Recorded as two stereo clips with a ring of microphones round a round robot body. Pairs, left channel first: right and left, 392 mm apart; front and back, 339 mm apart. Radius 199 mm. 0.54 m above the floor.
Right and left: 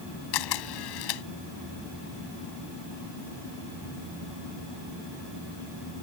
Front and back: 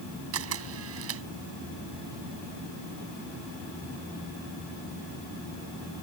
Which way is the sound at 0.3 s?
125° right.